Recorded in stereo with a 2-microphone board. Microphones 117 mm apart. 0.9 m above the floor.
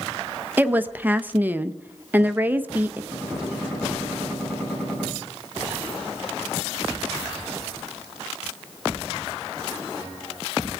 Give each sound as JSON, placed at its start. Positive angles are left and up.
{"t": 0.6, "sound": "a woman speaking", "side_deg": -15, "distance_m": 0.9}
{"t": 3.1, "sound": "a gunshot", "side_deg": 10, "distance_m": 8.5}